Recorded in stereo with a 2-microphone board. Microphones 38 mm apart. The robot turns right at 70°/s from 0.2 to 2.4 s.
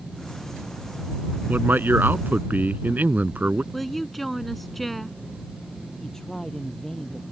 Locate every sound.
1.5 s a man speaking: 125° right; by 3.6 s 60° right
3.7 s a woman speaking: 5° left (ahead or behind)
6.0 s a man speaking: 10° left (ahead or behind)